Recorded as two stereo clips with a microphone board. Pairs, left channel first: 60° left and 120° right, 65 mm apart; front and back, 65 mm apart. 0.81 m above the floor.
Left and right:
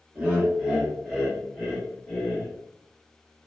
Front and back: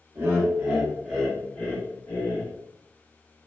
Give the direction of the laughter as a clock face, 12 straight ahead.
6 o'clock.